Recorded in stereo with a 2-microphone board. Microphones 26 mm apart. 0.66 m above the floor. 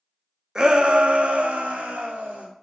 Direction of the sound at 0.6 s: 20° right (ahead or behind).